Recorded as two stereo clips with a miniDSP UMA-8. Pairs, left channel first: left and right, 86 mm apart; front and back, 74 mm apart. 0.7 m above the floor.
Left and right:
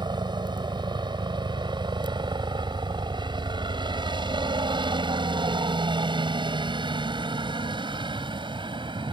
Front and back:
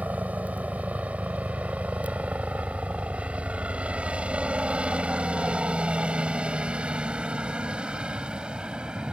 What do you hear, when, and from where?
0.0 s a helicopter: 110° right; by 9.1 s 105° right